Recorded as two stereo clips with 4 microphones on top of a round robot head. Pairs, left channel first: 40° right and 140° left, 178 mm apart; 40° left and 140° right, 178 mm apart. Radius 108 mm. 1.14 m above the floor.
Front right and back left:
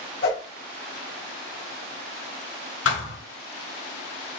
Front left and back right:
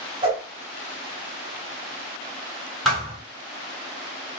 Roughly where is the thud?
Ahead right.